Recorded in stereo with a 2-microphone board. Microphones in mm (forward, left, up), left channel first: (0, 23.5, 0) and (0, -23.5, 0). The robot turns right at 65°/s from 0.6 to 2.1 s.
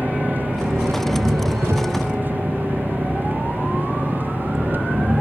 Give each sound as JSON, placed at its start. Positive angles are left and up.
{"t": 0.0, "sound": "an engine running", "azimuth_deg": -140}